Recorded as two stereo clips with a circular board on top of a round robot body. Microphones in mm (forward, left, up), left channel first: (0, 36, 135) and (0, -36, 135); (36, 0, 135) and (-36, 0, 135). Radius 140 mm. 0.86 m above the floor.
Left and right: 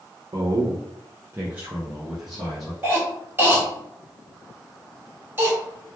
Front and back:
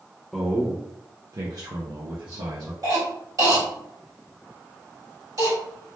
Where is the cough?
150° right, 2.0 m.